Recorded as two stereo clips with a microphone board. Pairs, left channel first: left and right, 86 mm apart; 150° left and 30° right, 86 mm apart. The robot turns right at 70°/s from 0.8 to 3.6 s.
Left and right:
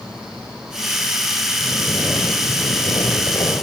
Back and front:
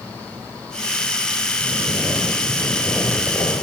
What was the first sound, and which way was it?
Snoring, 5° right.